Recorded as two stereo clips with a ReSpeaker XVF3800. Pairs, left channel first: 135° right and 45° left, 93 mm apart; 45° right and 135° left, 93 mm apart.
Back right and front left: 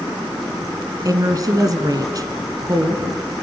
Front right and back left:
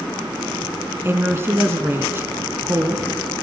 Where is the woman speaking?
80° left, 1.8 m.